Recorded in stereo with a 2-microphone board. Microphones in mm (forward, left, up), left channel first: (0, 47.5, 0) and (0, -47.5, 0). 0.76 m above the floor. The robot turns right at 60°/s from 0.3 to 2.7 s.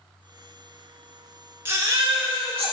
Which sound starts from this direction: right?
A baby crying, at 1.6 s.